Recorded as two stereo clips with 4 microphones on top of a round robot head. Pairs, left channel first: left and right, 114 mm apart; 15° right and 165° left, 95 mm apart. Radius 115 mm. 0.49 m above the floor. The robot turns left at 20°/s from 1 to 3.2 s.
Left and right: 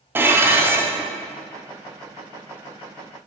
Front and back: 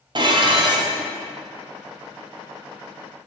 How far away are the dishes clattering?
About 0.9 m.